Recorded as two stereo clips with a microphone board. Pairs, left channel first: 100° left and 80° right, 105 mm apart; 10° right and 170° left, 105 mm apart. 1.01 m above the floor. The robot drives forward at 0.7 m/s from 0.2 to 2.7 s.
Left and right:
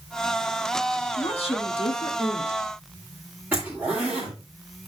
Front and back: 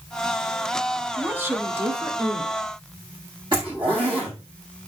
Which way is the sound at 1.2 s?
100° left.